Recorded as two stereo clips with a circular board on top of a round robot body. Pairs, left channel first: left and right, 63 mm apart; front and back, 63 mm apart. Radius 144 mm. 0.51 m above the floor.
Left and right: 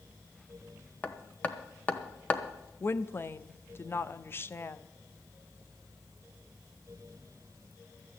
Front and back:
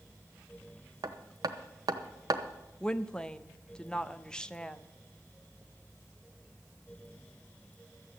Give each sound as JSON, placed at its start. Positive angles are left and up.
{"t": 1.0, "sound": "hammering", "azimuth_deg": 155, "distance_m": 1.0}
{"t": 2.8, "sound": "a woman speaking", "azimuth_deg": 70, "distance_m": 1.0}